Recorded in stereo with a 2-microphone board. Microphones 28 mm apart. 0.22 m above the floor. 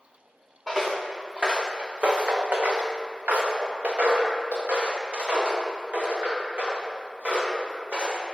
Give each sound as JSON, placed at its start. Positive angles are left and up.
{"t": 0.7, "sound": "footsteps", "side_deg": -10, "distance_m": 1.0}